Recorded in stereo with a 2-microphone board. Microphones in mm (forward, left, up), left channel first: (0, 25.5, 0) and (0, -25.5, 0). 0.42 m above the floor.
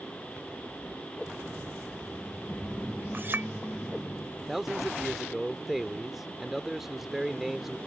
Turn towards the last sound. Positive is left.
turn(degrees=-5)  # may be behind; listen again after turning